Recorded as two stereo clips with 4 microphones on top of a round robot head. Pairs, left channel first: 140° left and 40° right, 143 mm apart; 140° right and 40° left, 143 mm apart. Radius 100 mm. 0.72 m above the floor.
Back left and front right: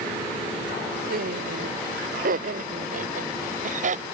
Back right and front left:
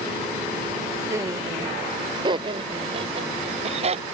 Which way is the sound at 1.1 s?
30° right.